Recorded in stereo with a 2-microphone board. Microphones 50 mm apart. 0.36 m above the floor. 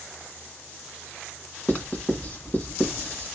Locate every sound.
1.7 s writing: 35° left (ahead or behind), 2 m